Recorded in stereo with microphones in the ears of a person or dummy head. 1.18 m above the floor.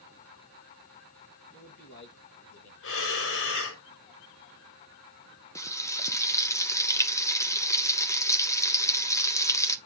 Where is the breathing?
70° left (ahead or behind), 1.6 m.